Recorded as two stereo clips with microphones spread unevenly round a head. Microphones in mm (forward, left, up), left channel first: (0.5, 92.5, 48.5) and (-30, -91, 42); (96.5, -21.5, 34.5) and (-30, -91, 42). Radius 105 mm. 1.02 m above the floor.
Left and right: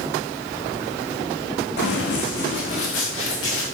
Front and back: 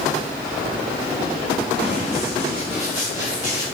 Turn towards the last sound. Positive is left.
turn(degrees=100)